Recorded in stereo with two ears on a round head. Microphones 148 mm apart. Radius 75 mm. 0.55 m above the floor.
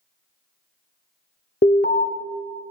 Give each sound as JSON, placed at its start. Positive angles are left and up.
{"t": 1.6, "sound": "an alarm", "side_deg": 50, "distance_m": 0.7}